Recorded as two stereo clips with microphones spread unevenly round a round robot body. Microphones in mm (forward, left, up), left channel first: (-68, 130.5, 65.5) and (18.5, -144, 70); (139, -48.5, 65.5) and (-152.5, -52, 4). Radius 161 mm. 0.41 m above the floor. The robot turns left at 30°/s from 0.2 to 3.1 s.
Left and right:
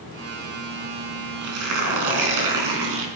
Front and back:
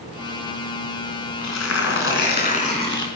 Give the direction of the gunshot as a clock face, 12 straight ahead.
No gunshot in this recording.